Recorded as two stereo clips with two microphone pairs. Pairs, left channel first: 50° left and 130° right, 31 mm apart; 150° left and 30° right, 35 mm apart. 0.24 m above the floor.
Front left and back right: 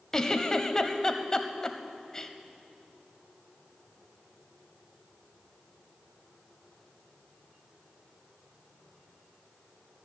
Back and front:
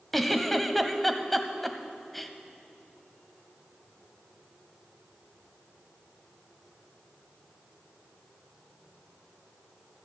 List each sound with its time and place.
0.1 s a giggle: 80° left, 0.7 m